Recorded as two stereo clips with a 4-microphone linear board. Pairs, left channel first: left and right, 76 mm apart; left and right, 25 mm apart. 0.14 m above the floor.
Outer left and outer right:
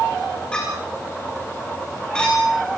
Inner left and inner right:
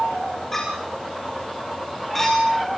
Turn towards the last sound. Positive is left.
turn(degrees=15)  # may be behind; listen again after turning